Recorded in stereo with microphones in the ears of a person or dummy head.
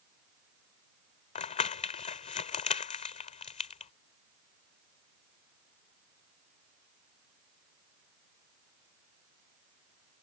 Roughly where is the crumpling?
Left.